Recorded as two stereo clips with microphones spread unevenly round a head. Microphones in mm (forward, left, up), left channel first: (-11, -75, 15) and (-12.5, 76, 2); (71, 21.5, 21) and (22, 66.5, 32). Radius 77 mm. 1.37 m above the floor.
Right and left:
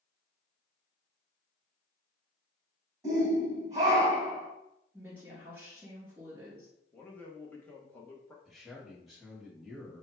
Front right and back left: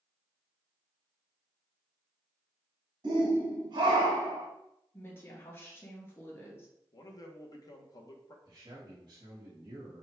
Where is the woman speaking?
10° left, 2.5 m.